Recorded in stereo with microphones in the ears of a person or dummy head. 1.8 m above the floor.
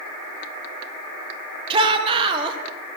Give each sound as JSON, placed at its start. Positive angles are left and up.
{"t": 1.7, "sound": "a shout", "side_deg": -30, "distance_m": 1.6}